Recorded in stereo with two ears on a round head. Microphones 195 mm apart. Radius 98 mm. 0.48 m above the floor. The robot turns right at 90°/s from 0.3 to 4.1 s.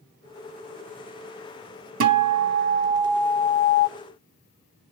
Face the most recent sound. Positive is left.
turn(degrees=80)